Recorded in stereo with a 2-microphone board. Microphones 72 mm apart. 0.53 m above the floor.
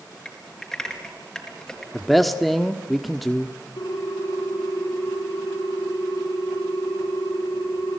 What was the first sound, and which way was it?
Typing on a keyboard, 5° left (ahead or behind).